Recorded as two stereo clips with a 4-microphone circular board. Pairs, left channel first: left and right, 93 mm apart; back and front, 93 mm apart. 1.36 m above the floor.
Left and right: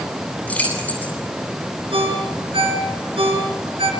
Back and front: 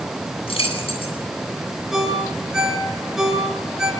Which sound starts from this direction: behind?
Keys jangling, at 0.5 s.